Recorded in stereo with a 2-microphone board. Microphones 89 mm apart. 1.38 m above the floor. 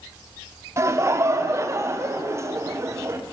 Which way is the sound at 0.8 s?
30° right (ahead or behind).